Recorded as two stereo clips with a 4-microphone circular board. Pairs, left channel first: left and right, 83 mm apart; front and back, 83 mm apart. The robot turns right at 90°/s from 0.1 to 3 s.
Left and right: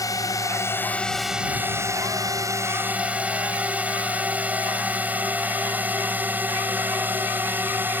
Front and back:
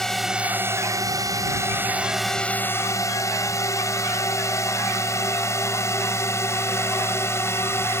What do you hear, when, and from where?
0.0 s a drone: 80° left; by 8.0 s 40° right